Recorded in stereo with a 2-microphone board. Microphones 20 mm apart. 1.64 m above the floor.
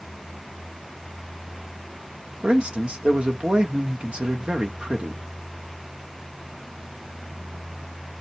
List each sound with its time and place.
2.4 s a man speaking: 70° right (ahead or behind), 1.0 m